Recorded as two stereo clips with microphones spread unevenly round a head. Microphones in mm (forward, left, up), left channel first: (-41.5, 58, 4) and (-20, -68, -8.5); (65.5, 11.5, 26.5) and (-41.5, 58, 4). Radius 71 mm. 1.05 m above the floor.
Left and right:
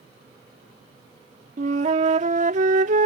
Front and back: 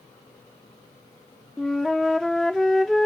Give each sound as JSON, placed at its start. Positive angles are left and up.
{"t": 1.6, "sound": "a flute", "azimuth_deg": -105}